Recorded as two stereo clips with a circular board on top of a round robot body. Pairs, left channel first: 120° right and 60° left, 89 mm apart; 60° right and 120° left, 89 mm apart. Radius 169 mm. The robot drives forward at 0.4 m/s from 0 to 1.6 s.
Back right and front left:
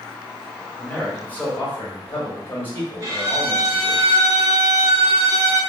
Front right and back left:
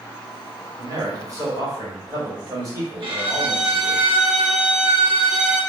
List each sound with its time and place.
0.8 s a man speaking: 165° left, 1.3 m; by 4.0 s 170° left, 1.6 m
3.0 s a violin: 110° left, 1.0 m